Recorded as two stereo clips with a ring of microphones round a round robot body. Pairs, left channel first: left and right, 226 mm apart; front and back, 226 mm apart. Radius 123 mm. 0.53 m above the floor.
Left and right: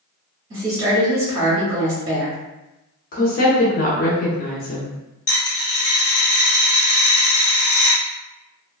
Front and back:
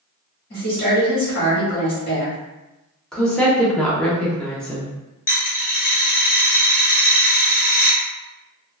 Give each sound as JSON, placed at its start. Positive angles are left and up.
{"t": 0.5, "sound": "a woman speaking", "azimuth_deg": -30, "distance_m": 1.3}
{"t": 3.1, "sound": "a woman speaking", "azimuth_deg": 85, "distance_m": 0.7}
{"t": 5.3, "sound": "a dropped coin", "azimuth_deg": 30, "distance_m": 1.5}